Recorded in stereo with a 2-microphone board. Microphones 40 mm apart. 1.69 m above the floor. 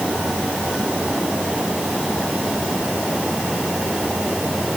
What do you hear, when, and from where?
Only background noise.